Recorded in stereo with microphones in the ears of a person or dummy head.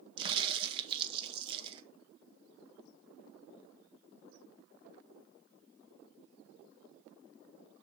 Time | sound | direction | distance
0.2 | a crack | 30° right (ahead or behind) | 0.9 m